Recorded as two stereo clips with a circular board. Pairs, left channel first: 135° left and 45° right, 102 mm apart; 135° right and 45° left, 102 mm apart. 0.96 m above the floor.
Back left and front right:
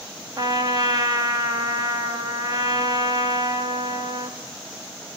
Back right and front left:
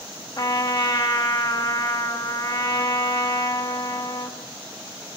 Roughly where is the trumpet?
Right.